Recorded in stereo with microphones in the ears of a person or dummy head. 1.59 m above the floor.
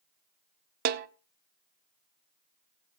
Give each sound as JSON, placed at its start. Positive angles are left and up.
{"t": 0.8, "sound": "a snare drum", "side_deg": -55, "distance_m": 0.6}